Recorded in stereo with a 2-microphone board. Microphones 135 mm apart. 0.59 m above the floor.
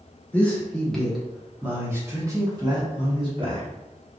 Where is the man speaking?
10° left (ahead or behind), 1.4 m; by 3.6 s 45° right (ahead or behind), 1.4 m.